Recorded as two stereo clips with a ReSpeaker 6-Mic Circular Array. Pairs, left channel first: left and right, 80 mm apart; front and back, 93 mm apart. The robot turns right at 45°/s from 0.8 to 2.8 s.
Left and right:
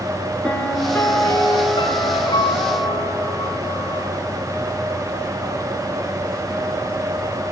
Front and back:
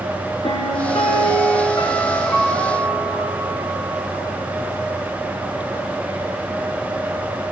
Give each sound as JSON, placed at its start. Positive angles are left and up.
{"t": 0.4, "sound": "a piano", "azimuth_deg": 10, "distance_m": 4.0}